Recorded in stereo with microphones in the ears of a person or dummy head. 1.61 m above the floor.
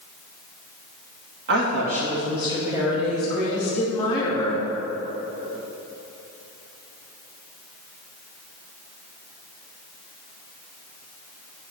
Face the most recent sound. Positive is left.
turn(degrees=20)  # may be behind; listen again after turning